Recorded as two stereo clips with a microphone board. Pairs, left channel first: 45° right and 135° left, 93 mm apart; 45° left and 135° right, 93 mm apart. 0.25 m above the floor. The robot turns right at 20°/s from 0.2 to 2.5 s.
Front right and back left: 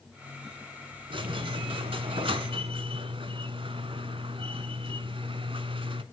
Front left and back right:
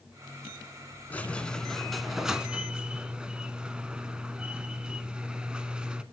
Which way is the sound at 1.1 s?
115° left.